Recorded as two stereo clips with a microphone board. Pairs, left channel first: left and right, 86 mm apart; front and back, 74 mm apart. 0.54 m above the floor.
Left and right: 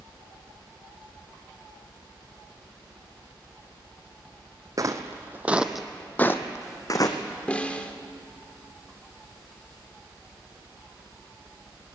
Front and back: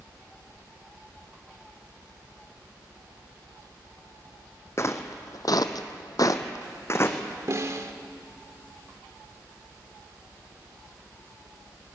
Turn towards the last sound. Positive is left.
turn(degrees=160)